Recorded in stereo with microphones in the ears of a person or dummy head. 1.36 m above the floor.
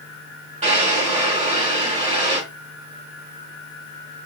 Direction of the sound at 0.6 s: 25° right (ahead or behind).